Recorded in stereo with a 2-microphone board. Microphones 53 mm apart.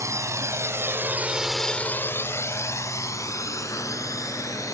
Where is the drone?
70° right (ahead or behind); by 4.7 s 80° left.